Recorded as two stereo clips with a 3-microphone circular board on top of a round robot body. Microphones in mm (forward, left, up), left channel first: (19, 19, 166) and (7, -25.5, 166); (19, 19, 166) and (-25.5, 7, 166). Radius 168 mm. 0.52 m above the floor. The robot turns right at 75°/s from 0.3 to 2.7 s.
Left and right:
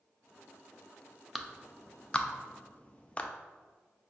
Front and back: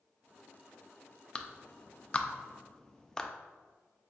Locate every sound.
1.4 s a clap: 25° right, 0.5 m; by 3.3 s 75° left, 0.5 m